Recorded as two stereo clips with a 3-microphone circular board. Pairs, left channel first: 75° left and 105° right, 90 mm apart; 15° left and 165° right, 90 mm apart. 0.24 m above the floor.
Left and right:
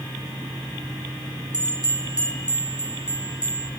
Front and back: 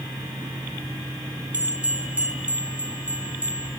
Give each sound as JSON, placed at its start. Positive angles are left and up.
{"t": 1.5, "sound": "a bell", "azimuth_deg": -90, "distance_m": 1.6}